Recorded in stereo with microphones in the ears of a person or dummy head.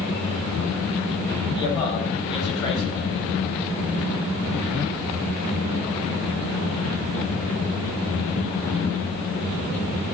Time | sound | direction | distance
1.5 | a man speaking | 25° left (ahead or behind) | 5.5 m